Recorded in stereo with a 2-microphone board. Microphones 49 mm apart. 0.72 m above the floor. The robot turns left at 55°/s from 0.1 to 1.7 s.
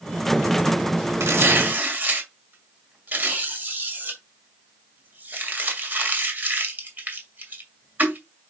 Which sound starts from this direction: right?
Tearing paper, at 1.2 s.